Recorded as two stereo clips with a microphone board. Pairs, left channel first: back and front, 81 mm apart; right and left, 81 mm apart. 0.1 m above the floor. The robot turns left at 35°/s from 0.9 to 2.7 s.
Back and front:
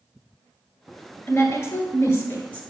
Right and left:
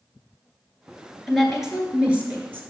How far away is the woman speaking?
About 1.2 m.